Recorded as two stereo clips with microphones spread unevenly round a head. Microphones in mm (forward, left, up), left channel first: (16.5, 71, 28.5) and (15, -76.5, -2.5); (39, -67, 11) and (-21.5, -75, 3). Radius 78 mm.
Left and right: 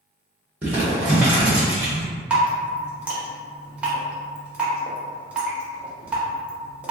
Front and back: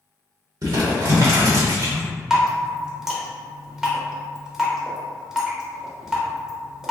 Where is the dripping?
120° right, 0.8 m.